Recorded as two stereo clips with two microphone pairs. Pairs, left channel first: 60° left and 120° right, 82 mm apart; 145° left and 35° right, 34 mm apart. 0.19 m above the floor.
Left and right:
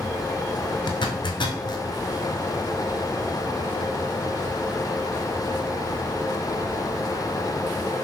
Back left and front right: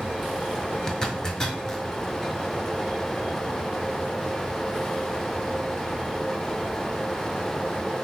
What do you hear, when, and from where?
0.9 s a zipper: 75° left, 0.6 m